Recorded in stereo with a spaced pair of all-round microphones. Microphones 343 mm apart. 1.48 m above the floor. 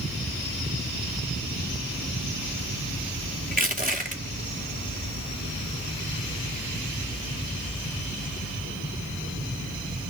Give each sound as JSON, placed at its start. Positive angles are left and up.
{"t": 3.5, "sound": "crushing", "side_deg": -25, "distance_m": 2.0}